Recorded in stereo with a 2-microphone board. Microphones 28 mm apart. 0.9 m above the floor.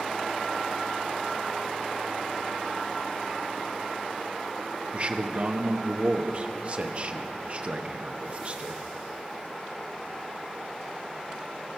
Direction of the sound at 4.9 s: 40° right (ahead or behind).